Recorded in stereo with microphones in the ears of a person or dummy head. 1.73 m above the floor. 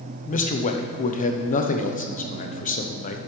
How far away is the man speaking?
About 0.8 m.